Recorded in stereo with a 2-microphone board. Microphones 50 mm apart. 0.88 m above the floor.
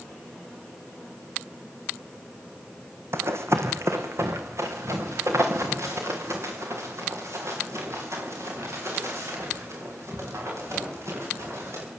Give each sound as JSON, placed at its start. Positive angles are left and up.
{"t": 3.1, "sound": "running footsteps", "side_deg": -60, "distance_m": 1.9}